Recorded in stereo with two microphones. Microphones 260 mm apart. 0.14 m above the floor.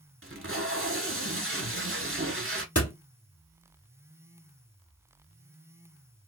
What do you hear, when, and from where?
0.2 s tape being pulled: 50° right (ahead or behind), 0.8 m
2.8 s a door slam: 65° left (ahead or behind), 2.5 m